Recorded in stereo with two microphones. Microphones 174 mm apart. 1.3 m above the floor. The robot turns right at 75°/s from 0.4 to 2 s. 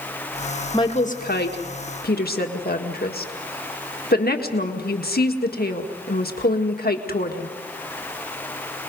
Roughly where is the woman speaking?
Left.